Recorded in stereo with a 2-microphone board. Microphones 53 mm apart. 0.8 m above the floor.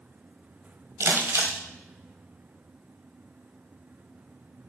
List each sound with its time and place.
1.0 s crumpling: 75° right (ahead or behind), 1.4 m